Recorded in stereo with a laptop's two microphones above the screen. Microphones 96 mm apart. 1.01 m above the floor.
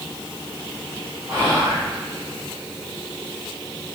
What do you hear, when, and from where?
1.3 s whispering: 25° right (ahead or behind), 0.7 m